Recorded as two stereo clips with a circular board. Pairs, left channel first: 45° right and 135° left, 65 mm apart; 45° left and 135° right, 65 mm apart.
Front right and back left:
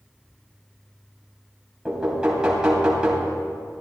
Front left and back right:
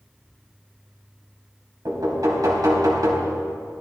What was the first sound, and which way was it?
Knocking, 150° right.